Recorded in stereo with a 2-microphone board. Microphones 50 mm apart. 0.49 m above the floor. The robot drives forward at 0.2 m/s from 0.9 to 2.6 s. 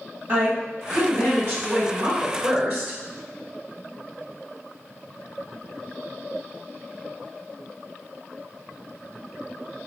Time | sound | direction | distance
0.3 | a woman speaking | 40° right (ahead or behind) | 1.6 m